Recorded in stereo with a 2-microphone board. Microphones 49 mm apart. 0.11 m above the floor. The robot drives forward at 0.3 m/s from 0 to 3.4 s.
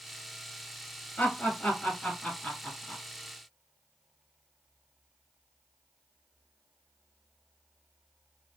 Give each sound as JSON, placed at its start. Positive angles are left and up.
{"t": 1.2, "sound": "laughter", "side_deg": 20, "distance_m": 1.4}